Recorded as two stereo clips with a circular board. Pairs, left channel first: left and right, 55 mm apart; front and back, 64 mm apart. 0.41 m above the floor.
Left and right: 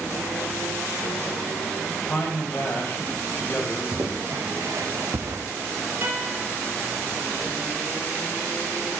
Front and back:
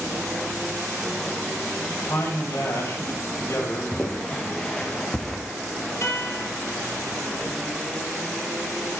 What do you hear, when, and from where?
2.0 s a man speaking: 35° left, 1.9 m
3.9 s footsteps: 65° right, 1.9 m; by 5.4 s 90° right, 0.9 m
6.0 s a guitar: 40° right, 2.5 m